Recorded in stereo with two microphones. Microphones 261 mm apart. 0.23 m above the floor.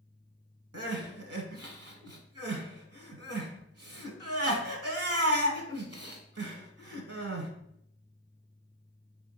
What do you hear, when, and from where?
0.7 s crying: 65° right (ahead or behind), 0.8 m